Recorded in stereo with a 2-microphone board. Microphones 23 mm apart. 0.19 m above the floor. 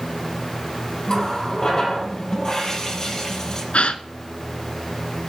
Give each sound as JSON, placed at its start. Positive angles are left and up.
{"t": 1.1, "sound": "a running tap", "side_deg": 35, "distance_m": 3.5}
{"t": 3.7, "sound": "a gasp", "side_deg": 65, "distance_m": 0.8}